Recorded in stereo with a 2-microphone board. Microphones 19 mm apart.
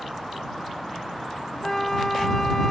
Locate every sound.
1.6 s a flute: 15° left (ahead or behind)